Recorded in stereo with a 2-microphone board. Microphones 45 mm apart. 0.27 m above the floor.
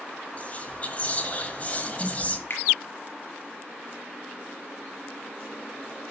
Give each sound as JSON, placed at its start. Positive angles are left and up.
{"t": 0.4, "sound": "whispering", "side_deg": 35, "distance_m": 1.3}
{"t": 2.5, "sound": "a finger snap", "side_deg": 60, "distance_m": 4.0}